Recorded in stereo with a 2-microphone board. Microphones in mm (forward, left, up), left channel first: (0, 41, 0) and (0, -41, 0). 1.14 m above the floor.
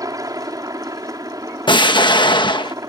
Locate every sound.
0.0 s a helicopter: 45° right (ahead or behind)
1.7 s an explosion: 75° left (ahead or behind)